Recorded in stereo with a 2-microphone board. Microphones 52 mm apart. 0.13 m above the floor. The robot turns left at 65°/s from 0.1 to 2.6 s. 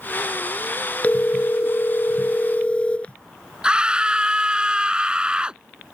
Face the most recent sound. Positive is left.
turn(degrees=-20)  # may be behind; listen again after turning